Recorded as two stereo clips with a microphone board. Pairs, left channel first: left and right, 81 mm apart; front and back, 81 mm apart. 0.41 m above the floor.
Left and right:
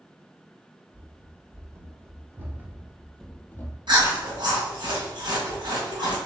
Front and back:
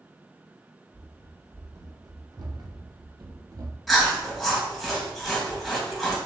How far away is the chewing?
About 1.7 m.